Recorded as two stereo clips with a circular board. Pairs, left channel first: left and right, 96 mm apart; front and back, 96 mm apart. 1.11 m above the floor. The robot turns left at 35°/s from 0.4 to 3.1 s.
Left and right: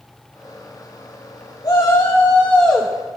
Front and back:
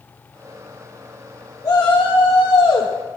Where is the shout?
45° left, 1.7 m; by 2.9 s straight ahead, 1.7 m.